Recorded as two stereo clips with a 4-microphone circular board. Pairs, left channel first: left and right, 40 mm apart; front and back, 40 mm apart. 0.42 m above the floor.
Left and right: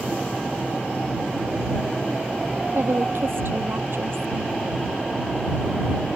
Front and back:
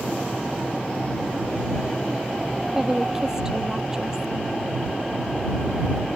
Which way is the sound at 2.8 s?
105° right.